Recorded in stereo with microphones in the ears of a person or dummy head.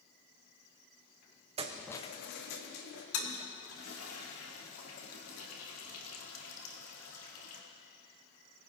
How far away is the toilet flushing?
About 1.7 m.